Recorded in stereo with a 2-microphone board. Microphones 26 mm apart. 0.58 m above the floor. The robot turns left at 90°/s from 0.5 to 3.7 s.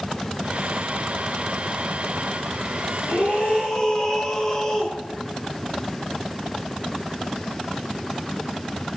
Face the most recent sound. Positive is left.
turn(degrees=20)